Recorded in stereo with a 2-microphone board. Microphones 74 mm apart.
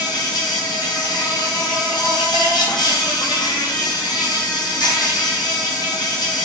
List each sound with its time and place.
0.0 s an insect: 75° left (ahead or behind), 1.0 m